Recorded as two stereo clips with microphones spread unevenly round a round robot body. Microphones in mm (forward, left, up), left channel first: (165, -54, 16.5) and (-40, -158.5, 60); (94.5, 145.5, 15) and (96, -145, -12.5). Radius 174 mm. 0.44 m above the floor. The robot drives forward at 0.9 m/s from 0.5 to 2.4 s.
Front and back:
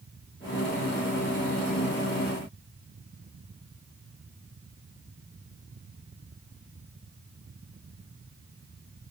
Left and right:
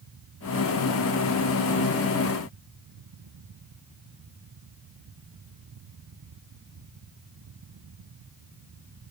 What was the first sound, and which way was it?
Only background noise.